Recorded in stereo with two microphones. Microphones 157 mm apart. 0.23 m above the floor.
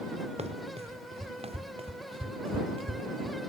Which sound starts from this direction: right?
Running footsteps, at 0.4 s.